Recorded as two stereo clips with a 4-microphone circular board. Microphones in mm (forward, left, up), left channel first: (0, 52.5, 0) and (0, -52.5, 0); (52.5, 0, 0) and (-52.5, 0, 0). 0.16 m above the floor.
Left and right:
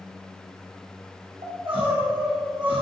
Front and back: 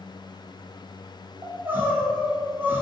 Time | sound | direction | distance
1.4 | crying | 115° right | 2.5 m